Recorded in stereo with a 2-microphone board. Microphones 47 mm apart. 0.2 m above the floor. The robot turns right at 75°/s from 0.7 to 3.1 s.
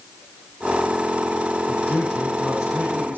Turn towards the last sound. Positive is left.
turn(degrees=-115)